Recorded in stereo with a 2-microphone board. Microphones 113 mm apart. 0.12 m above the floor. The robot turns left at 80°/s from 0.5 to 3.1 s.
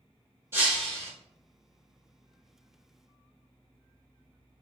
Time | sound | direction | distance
0.5 | breaking glass | 160° right | 1.3 m